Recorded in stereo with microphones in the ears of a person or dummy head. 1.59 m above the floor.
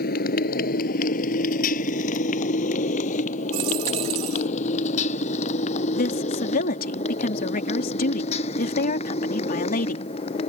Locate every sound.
0.0 s a motorcycle: 45° left (ahead or behind); by 10.5 s 30° left (ahead or behind)
3.5 s a dropped coin: 25° right (ahead or behind)
6.0 s a woman speaking: 50° left (ahead or behind)